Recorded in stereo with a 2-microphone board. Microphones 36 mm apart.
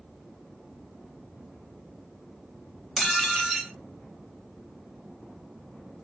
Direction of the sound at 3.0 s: Centre (ahead or behind).